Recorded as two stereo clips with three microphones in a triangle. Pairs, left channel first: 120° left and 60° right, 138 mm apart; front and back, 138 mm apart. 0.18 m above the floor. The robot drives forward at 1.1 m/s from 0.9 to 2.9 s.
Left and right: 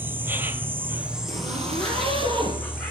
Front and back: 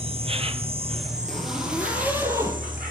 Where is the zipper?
90° right, 3.5 m; by 2.6 s 110° right, 3.5 m.